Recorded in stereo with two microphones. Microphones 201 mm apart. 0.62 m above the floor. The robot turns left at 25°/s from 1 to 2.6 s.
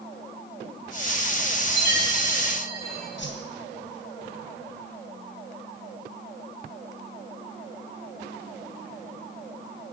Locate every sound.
1.6 s a chime: 75° right (ahead or behind), 7.5 m; by 3.1 s 50° right (ahead or behind), 7.5 m
3.2 s a whoosh: 65° left (ahead or behind), 3 m